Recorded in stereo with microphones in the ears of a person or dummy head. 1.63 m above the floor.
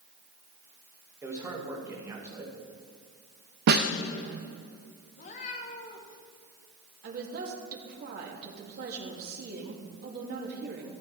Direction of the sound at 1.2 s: 15° right (ahead or behind).